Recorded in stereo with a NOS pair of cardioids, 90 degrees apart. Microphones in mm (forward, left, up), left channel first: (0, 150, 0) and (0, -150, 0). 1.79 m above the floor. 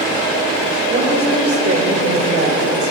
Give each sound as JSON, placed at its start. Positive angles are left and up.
{"t": 0.9, "sound": "a woman speaking", "azimuth_deg": -30, "distance_m": 7.5}